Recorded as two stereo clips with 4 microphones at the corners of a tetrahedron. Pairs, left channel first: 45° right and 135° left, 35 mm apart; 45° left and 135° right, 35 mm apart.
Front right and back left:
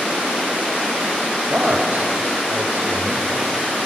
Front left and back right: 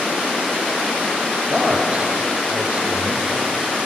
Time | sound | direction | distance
1.4 | a man speaking | 175° left | 5 m